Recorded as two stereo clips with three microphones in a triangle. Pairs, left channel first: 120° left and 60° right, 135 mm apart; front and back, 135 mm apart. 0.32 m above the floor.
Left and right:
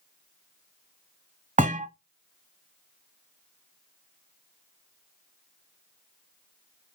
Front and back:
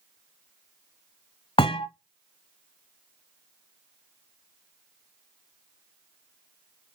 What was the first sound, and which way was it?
A thud, 45° right.